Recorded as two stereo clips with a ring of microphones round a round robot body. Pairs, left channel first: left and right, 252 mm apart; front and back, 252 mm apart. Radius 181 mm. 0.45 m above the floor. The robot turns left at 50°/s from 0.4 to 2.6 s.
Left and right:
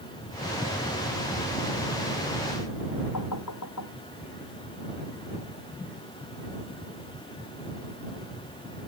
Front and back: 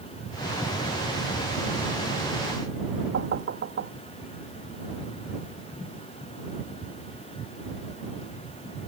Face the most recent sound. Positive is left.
turn(degrees=140)